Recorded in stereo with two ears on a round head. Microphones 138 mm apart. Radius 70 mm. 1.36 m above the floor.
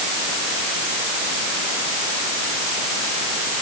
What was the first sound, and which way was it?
Only background noise.